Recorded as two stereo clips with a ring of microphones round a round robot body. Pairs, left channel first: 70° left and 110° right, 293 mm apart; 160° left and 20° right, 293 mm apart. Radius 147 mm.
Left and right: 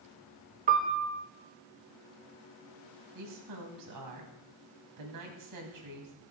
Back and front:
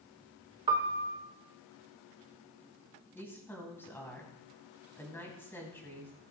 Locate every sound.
0.7 s a piano: 85° right, 1.0 m
3.1 s a woman speaking: 120° right, 3 m